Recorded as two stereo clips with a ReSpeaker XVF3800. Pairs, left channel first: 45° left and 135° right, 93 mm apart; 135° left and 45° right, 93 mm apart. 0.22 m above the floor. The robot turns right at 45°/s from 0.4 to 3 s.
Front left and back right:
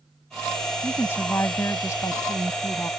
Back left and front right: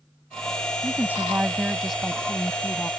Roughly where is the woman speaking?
Ahead.